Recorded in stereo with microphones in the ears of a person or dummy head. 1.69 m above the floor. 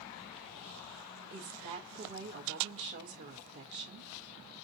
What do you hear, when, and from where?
1.3 s a woman speaking: 50° right (ahead or behind), 0.9 m